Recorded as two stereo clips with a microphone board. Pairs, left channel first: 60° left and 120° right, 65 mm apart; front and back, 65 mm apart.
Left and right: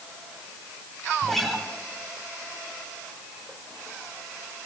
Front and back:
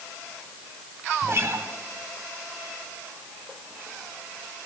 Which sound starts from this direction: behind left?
A guitar, at 1.2 s.